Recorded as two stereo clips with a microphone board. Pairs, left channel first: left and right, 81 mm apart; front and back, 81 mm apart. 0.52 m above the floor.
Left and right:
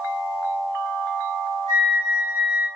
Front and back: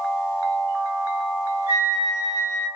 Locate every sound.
1.7 s a flute: 120° left, 2 m